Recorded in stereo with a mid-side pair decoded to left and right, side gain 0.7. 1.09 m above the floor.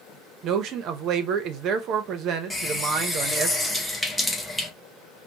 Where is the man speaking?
50° right, 0.8 m.